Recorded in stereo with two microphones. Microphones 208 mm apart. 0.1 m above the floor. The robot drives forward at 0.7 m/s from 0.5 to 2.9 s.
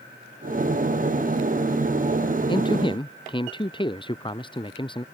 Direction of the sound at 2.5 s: 25° left (ahead or behind).